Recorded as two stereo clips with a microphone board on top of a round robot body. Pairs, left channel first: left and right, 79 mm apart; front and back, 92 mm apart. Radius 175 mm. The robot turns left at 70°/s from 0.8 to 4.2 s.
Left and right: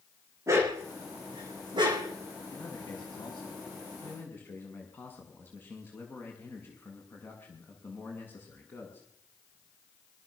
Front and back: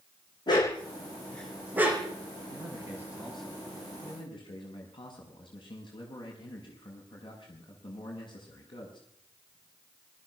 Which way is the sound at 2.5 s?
145° left.